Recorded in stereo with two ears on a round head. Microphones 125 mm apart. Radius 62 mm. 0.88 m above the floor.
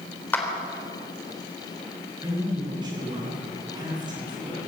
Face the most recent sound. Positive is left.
turn(degrees=-30)  # may be behind; listen again after turning